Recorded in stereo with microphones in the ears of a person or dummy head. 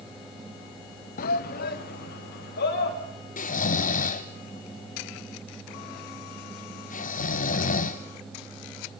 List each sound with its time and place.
1.2 s a shout: 45° left (ahead or behind), 0.5 m; by 3.0 s 55° left (ahead or behind), 3.5 m
3.4 s snoring: 40° left (ahead or behind), 0.7 m